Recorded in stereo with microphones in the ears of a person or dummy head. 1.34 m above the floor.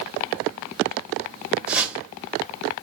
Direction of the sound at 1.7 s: 5° right (ahead or behind).